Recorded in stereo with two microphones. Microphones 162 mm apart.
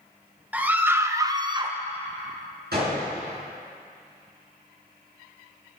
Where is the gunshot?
80° right, 5 m.